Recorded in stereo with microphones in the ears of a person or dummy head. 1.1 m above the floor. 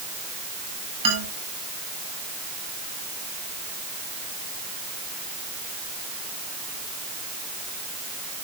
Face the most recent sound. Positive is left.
turn(degrees=-30)  # may be behind; listen again after turning